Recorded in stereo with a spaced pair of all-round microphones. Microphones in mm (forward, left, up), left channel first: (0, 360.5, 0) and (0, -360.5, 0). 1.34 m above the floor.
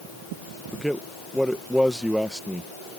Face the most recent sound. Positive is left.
turn(degrees=0)  # may be behind; listen again after turning